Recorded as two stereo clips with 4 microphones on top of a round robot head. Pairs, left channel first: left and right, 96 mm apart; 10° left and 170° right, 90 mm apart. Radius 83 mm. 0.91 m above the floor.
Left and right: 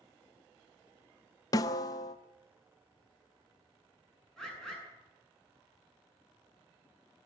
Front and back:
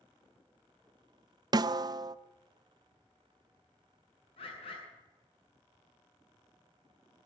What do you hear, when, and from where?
1.5 s a snare drum: 145° left, 0.5 m
4.4 s a bird: 5° left, 8 m